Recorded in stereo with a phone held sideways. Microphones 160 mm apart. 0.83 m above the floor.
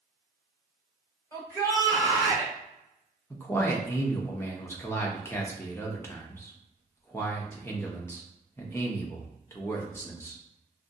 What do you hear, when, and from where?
1.3 s a shout: 15° left (ahead or behind), 2 m
3.3 s a man speaking: 15° left (ahead or behind), 0.9 m